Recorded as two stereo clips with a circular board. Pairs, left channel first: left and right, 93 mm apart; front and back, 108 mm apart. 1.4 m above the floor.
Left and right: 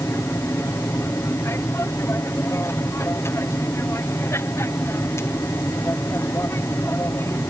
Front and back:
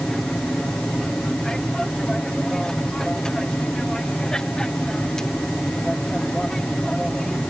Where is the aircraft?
80° left.